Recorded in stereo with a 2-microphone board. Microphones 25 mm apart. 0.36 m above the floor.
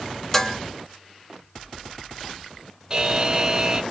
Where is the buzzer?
25° right (ahead or behind), 0.5 m.